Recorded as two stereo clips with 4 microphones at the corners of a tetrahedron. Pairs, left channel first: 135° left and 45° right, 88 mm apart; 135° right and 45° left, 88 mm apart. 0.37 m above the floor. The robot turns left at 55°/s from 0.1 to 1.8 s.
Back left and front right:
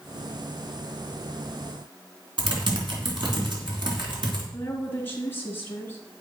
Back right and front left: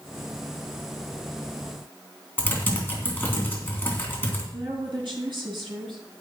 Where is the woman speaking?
70° left, 4 m.